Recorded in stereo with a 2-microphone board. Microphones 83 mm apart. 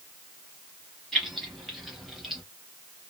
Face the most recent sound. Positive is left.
turn(degrees=-5)  # may be behind; listen again after turning